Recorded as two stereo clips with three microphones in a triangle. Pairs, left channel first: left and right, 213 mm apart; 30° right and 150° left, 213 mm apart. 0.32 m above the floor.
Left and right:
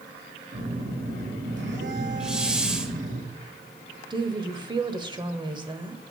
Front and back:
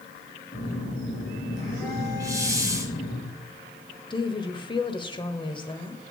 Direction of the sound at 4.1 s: 55° right.